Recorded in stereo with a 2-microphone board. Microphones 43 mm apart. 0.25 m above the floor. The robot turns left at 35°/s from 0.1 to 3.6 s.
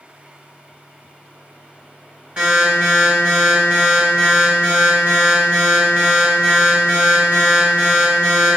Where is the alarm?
45° right, 1.7 m; by 8.6 s 90° right, 1.7 m.